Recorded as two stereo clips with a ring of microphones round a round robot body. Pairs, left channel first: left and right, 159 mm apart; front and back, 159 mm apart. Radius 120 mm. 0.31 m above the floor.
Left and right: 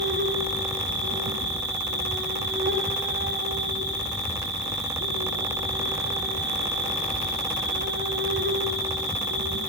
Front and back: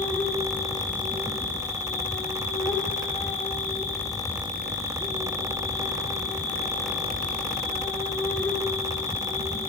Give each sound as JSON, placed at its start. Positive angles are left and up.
{"t": 0.0, "sound": "an insect", "azimuth_deg": -80, "distance_m": 4.5}